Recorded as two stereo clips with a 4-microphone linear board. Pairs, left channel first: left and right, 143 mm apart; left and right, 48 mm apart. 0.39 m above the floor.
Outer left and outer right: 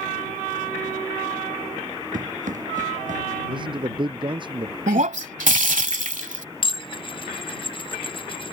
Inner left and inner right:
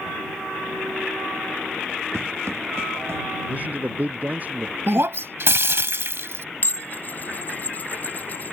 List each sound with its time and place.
2.1 s running footsteps: 65° right (ahead or behind); by 3.2 s 60° right (ahead or behind)
3.5 s a man speaking: 35° right (ahead or behind)
4.9 s breaking glass: 65° right (ahead or behind)
6.6 s dishes clattering: 40° left (ahead or behind)